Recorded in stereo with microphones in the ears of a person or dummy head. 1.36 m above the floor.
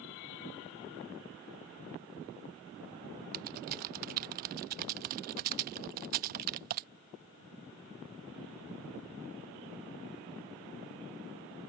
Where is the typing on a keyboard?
45° right (ahead or behind).